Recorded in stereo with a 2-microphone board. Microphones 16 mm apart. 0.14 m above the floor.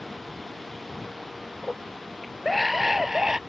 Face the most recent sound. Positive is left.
turn(degrees=-25)  # may be behind; listen again after turning